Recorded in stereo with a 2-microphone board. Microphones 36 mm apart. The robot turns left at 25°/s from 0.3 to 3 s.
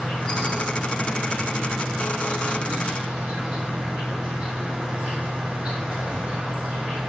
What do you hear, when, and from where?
0.0 s an insect: 40° left, 3 m; by 7.1 s 25° right, 3 m